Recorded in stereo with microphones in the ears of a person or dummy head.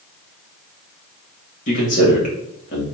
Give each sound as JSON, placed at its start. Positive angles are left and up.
{"t": 1.7, "sound": "a man speaking", "side_deg": 45, "distance_m": 1.4}